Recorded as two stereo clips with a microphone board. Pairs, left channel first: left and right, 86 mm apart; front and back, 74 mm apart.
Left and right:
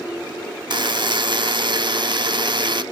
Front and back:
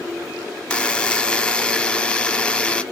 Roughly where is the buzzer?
Right.